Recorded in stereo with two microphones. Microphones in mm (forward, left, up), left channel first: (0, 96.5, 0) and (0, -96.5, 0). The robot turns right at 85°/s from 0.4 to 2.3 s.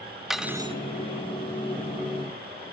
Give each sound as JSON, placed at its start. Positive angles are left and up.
{"t": 0.3, "sound": "cutlery clinking", "azimuth_deg": 180, "distance_m": 1.4}